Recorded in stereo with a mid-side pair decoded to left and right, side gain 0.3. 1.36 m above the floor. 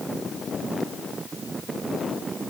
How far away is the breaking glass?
I don't hear breaking glass.